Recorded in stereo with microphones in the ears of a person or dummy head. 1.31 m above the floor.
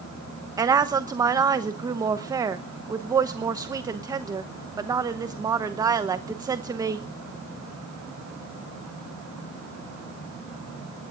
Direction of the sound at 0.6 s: 15° right (ahead or behind).